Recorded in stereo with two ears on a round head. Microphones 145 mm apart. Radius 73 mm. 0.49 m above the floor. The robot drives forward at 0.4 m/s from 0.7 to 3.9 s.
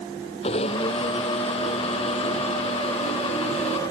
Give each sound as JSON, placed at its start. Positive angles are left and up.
{"t": 0.4, "sound": "a blender", "side_deg": 35}